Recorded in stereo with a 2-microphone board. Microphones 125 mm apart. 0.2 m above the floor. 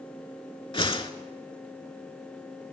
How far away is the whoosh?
About 0.5 m.